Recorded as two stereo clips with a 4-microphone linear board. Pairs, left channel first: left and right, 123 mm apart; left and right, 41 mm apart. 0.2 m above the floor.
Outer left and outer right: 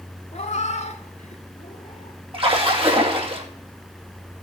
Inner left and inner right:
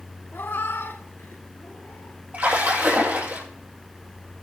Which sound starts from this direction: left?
A cat meowing, at 0.3 s.